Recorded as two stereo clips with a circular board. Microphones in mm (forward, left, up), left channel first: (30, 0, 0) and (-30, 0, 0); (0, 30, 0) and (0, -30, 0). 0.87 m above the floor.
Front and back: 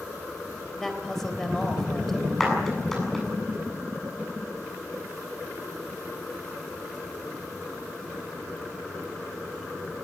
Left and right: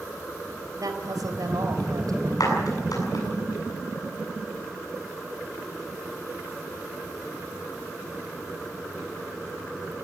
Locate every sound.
0.8 s a woman speaking: 85° right, 3.5 m
2.4 s a clap: 85° left, 8 m